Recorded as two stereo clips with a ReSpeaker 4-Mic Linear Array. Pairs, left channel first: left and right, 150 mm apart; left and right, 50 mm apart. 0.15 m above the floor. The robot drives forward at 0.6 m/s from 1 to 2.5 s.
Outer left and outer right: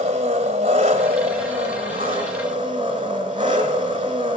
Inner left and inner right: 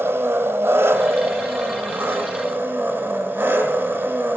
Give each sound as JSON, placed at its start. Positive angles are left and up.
{"t": 0.0, "sound": "an engine running", "side_deg": -45, "distance_m": 2.5}